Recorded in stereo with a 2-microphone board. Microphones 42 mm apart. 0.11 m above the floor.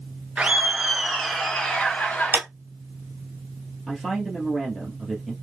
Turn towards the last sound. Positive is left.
turn(degrees=5)  # may be behind; listen again after turning